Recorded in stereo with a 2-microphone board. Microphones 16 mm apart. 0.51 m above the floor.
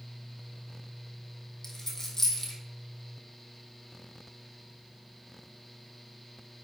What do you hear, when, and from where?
1.6 s a dropped coin: 30° left (ahead or behind), 2 m